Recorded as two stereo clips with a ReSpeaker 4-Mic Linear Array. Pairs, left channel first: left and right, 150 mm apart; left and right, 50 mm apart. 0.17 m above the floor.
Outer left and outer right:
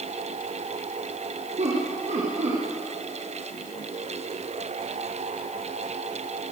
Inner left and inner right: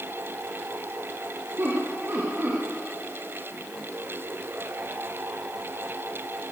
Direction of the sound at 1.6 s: 50° right (ahead or behind).